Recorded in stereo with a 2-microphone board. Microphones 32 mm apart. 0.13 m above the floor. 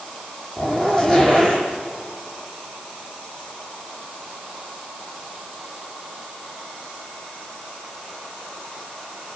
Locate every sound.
0.6 s a zipper: 10° left (ahead or behind), 5 m